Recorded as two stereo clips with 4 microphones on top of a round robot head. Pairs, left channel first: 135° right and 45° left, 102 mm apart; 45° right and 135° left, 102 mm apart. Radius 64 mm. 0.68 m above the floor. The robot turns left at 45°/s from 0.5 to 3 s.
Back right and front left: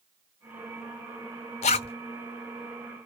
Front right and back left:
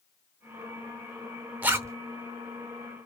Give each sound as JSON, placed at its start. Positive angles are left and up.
{"t": 1.6, "sound": "a zipper", "azimuth_deg": -155, "distance_m": 0.6}